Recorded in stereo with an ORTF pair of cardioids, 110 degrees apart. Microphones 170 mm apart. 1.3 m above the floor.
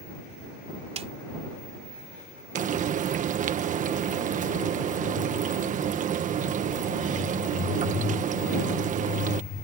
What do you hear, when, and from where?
1.0 s a snare drum: 40° right
2.5 s frying: 50° right